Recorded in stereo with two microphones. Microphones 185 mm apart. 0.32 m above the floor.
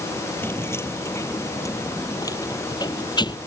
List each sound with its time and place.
0.4 s keys jangling: 10° left (ahead or behind); by 3.4 s 25° left (ahead or behind)